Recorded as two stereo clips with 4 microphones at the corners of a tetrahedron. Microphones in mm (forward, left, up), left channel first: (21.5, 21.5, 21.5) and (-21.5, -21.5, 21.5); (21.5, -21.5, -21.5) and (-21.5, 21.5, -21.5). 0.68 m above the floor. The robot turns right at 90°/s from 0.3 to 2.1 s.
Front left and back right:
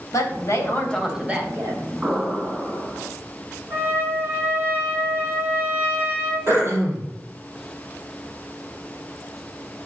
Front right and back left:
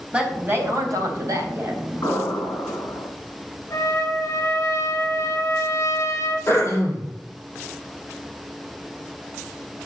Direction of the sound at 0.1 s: 65° left.